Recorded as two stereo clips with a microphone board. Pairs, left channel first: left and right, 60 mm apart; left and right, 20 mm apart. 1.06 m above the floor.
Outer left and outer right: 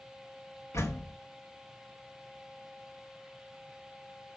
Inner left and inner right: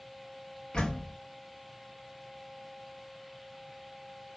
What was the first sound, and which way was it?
A door slam, 55° left (ahead or behind).